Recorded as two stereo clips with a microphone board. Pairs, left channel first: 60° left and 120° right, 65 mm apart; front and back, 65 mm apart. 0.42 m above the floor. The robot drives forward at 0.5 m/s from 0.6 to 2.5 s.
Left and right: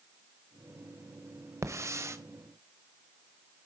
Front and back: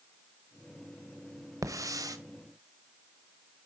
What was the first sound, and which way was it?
A hiss, 155° right.